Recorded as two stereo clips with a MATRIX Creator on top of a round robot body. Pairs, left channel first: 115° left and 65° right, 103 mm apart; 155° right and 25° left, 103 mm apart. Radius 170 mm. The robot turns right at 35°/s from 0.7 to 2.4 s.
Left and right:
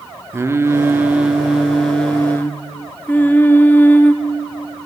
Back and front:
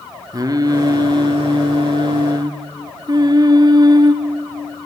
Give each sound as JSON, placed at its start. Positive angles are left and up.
{"t": 0.3, "sound": "singing", "azimuth_deg": -10, "distance_m": 0.8}